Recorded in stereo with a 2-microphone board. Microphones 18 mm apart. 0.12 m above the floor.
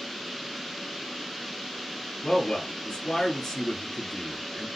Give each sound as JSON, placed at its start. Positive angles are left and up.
{"t": 2.2, "sound": "a man speaking", "side_deg": 40, "distance_m": 1.6}